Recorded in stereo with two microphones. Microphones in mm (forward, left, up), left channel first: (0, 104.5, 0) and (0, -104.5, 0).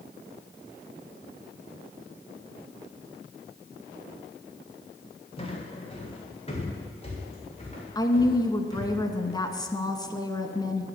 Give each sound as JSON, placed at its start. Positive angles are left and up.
{"t": 5.4, "sound": "footsteps", "side_deg": 25, "distance_m": 3.0}
{"t": 8.0, "sound": "a woman speaking", "side_deg": 20, "distance_m": 1.1}